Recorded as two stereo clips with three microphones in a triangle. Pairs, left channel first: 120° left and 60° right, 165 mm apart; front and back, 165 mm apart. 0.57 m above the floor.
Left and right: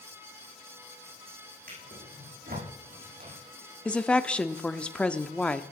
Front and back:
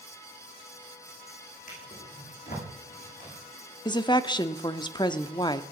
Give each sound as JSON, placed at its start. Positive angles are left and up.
{"t": 1.7, "sound": "a drawer", "azimuth_deg": -35, "distance_m": 8.5}
{"t": 3.9, "sound": "a woman speaking", "azimuth_deg": 40, "distance_m": 0.8}